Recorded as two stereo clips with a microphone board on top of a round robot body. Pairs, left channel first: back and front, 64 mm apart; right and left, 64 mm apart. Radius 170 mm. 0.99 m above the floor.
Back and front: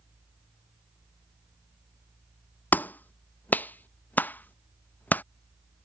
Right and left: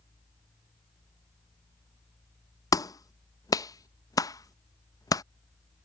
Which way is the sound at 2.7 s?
115° right.